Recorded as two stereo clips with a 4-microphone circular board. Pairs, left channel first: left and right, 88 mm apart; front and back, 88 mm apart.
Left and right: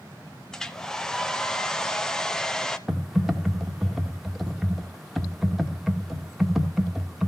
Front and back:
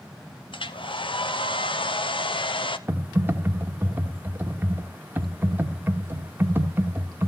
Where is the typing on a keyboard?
Straight behind, 1.1 m.